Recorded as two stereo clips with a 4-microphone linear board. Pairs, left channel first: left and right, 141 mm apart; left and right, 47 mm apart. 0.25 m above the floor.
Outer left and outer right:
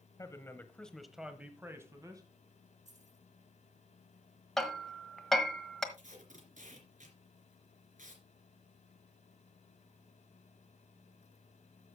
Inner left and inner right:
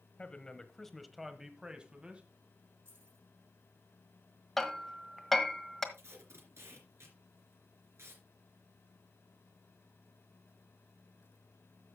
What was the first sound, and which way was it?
A man speaking, 25° left (ahead or behind).